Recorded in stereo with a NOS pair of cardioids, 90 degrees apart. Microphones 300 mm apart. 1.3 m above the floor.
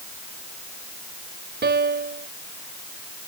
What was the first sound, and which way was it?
A piano, 35° right.